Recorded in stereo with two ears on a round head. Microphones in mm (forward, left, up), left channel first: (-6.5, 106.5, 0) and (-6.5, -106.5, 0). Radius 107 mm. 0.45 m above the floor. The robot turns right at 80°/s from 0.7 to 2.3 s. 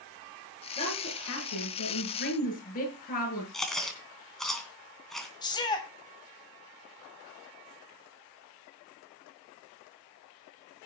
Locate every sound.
0.8 s a woman speaking: 20° left, 7.5 m; by 3.4 s 140° left, 7.5 m
3.5 s chewing: centre (ahead or behind), 3 m
5.4 s a shout: 20° left (ahead or behind), 3 m